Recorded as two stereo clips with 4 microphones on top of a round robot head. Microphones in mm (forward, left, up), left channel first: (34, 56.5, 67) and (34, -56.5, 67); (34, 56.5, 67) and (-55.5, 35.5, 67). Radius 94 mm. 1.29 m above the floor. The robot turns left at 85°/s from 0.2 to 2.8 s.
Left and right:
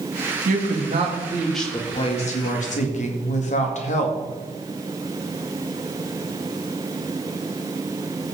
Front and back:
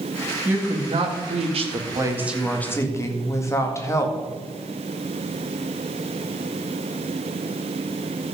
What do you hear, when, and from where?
0.5 s a woman speaking: 85° right, 1.9 m; by 4.2 s 75° left, 1.9 m